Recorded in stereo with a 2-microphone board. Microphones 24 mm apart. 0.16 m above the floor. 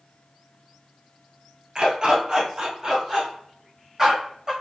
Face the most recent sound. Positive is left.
turn(degrees=-20)  # may be behind; listen again after turning